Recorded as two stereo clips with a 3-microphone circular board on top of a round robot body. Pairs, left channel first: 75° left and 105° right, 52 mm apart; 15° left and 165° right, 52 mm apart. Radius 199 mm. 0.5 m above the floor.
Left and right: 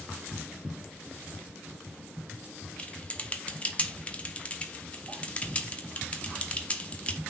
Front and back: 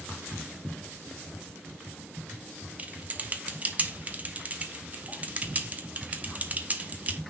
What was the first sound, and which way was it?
Typing on a keyboard, 135° left.